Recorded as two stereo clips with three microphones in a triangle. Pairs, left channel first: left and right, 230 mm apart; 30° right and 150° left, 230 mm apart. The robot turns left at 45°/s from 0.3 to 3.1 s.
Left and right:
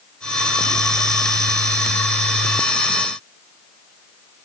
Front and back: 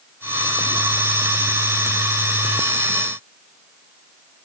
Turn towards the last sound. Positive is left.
No sound to turn to.